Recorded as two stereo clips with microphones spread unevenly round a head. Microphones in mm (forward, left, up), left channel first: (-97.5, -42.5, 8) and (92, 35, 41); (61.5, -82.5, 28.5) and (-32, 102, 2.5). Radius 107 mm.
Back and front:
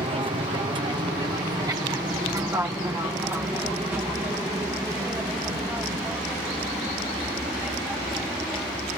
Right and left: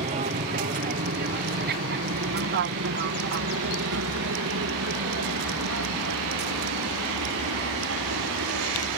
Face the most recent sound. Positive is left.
turn(degrees=110)